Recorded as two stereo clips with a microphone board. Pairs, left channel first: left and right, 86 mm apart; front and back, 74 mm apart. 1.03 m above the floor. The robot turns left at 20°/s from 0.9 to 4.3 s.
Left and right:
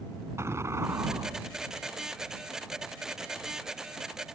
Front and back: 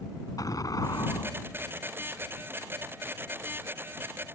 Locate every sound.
0.4 s an explosion: 35° right; by 1.9 s 50° right